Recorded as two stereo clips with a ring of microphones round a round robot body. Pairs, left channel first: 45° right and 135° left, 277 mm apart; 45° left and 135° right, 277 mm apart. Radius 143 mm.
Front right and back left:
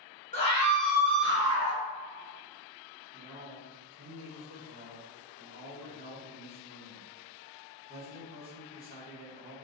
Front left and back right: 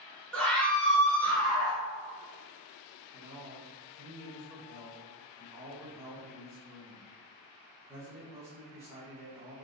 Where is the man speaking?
165° left, 1.2 m.